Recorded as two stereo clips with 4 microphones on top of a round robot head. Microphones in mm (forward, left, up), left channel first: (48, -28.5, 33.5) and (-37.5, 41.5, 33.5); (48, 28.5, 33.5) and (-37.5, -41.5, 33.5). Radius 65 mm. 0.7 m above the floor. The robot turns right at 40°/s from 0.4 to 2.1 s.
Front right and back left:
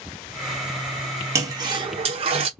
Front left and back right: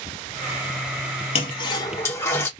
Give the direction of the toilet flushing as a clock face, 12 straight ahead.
9 o'clock.